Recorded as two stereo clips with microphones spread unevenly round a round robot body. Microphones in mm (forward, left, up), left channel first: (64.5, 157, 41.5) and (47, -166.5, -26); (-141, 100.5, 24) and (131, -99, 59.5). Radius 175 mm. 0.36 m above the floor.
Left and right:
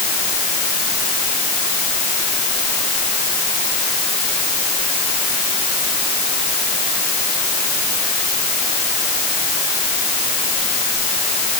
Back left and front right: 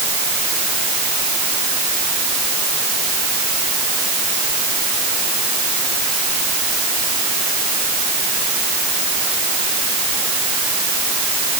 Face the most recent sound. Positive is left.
No sound to turn to.